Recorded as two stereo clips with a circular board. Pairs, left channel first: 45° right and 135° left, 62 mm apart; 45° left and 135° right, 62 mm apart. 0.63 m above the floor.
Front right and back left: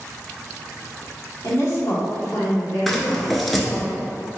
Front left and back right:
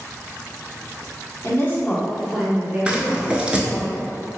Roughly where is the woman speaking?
Ahead.